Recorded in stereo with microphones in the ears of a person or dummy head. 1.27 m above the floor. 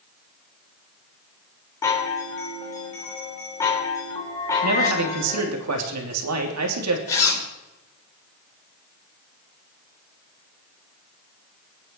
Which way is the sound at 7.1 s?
15° left (ahead or behind).